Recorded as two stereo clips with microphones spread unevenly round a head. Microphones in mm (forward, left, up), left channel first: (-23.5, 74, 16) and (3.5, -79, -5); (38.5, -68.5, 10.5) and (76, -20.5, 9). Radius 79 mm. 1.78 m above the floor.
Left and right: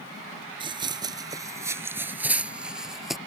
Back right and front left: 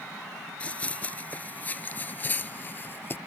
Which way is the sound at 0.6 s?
100° right.